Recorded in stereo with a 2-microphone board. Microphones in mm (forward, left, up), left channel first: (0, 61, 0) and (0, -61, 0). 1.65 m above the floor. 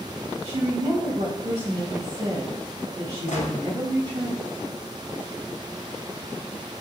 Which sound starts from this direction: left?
A gunshot, at 3.3 s.